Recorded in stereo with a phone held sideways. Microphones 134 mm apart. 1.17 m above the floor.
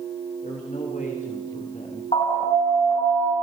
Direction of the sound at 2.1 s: 45° left (ahead or behind).